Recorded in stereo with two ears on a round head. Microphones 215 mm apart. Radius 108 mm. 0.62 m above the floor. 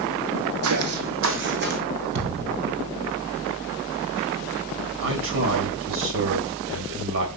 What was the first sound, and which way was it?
Footsteps, 65° right (ahead or behind).